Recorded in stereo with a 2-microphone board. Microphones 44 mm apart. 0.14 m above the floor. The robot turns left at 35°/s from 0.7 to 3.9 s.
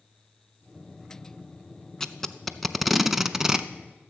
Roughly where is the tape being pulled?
Centre.